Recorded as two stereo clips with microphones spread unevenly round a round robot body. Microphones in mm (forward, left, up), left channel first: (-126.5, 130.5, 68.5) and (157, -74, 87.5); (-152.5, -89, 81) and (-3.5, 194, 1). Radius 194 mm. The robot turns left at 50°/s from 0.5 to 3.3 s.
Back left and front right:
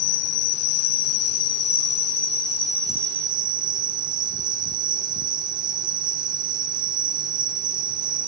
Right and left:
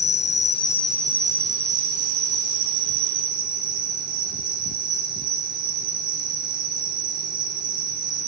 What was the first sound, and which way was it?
An insect, 175° left.